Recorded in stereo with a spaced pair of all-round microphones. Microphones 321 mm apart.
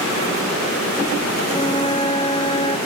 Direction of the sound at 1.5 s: 20° left (ahead or behind).